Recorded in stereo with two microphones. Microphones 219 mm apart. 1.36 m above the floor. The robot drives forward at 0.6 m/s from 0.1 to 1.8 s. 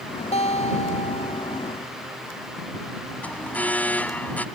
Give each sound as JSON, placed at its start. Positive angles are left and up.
{"t": 0.3, "sound": "a guitar", "side_deg": 30}
{"t": 3.2, "sound": "an alarm", "side_deg": 5}